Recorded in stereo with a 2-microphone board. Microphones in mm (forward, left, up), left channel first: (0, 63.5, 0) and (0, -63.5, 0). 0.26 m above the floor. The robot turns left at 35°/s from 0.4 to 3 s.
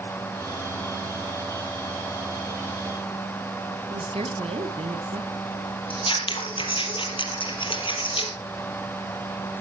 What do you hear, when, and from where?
3.9 s a woman speaking: 55° right (ahead or behind), 2.0 m
5.9 s scissors: 45° left (ahead or behind), 3.5 m